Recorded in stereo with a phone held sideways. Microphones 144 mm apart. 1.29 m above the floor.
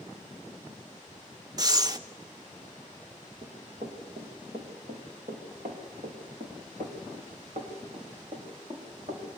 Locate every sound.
1.6 s breathing: 30° right (ahead or behind), 1.3 m
3.4 s running footsteps: 75° right (ahead or behind), 7 m; by 9.2 s 55° right (ahead or behind), 7.5 m